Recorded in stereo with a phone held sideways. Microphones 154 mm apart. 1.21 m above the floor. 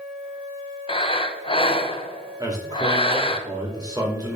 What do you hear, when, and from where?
0.9 s breathing: 35° left (ahead or behind), 0.6 m
2.4 s a man speaking: 25° right (ahead or behind), 2 m